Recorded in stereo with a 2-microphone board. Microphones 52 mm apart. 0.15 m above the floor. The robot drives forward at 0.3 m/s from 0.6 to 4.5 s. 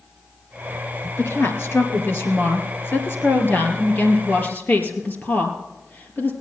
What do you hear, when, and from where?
1.2 s a woman speaking: 55° left (ahead or behind), 2.5 m; by 6.3 s 40° left (ahead or behind), 3 m